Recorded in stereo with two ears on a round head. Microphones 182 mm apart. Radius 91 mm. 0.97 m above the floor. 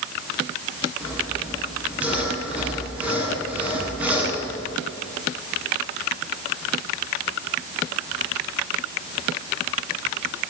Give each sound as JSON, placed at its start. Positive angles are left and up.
{"t": 1.0, "sound": "sawing", "side_deg": -5, "distance_m": 8.5}